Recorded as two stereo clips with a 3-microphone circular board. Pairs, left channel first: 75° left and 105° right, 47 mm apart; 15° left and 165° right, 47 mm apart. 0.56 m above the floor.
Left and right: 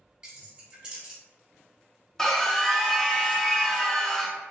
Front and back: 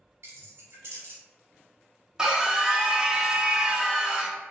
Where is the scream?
140° left, 0.6 m.